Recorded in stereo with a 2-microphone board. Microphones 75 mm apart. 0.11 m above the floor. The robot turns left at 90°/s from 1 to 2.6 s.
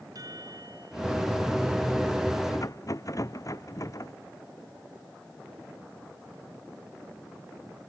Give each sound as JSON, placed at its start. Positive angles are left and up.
{"t": 0.1, "sound": "a chime", "side_deg": -55}
{"t": 2.5, "sound": "a rattle", "side_deg": 55}